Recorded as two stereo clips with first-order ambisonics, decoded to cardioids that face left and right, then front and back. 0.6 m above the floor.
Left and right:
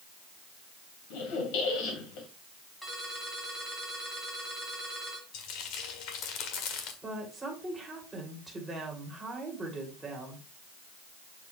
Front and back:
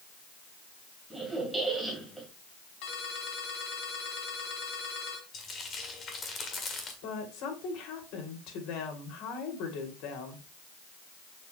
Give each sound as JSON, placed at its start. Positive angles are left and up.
{"t": 1.1, "sound": "a squeak", "azimuth_deg": 90, "distance_m": 2.5}
{"t": 2.8, "sound": "a ringtone", "azimuth_deg": 5, "distance_m": 3.0}
{"t": 5.3, "sound": "frying", "azimuth_deg": 65, "distance_m": 1.6}
{"t": 7.0, "sound": "a woman speaking", "azimuth_deg": -5, "distance_m": 2.5}